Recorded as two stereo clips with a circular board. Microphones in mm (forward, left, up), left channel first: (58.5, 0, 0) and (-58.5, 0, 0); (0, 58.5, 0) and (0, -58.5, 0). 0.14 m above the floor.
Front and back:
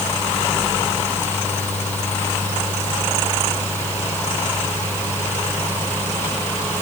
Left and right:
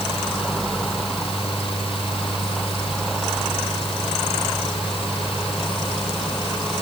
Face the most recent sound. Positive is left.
No sound to turn to.